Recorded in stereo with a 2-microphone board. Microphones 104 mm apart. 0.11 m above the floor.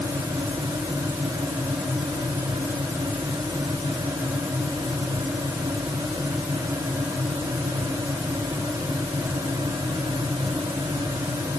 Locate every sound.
Only background noise.